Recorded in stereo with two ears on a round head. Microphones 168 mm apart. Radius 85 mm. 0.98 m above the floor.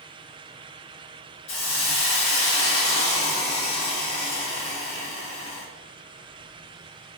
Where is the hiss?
70° left (ahead or behind), 1.6 m.